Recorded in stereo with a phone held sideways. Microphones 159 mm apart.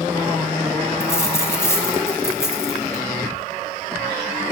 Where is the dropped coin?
15° left (ahead or behind), 1.4 m.